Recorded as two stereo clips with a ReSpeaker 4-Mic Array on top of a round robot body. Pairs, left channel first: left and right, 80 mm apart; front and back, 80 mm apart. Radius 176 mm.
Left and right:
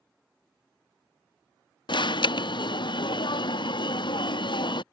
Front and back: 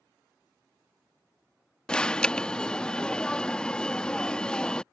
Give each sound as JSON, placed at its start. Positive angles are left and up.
{"t": 1.9, "sound": "an alarm", "azimuth_deg": 80}